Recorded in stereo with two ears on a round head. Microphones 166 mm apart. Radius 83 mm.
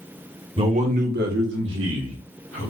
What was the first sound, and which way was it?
A man speaking, 30° right (ahead or behind).